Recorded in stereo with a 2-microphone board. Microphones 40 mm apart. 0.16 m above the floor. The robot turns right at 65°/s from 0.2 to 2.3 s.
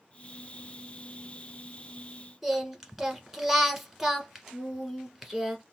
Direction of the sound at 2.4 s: 5° right (ahead or behind).